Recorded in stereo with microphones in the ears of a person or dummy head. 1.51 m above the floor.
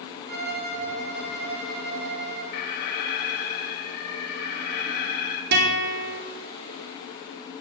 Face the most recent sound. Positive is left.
turn(degrees=-65)  # may be behind; listen again after turning